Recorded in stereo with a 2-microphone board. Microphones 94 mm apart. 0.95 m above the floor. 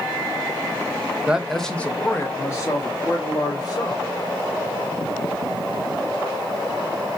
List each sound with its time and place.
1.3 s a man speaking: 15° right (ahead or behind), 0.7 m; by 4.1 s 45° left (ahead or behind), 2.5 m